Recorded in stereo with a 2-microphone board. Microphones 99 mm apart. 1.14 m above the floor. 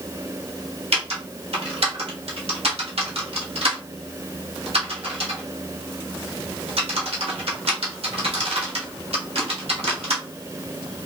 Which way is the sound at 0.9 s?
80° right.